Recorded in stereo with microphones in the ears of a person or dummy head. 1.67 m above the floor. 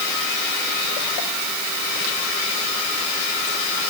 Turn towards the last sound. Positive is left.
No sound to turn to.